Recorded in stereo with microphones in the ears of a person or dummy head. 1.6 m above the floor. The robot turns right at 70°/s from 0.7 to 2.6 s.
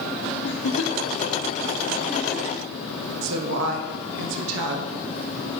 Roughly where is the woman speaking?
Right.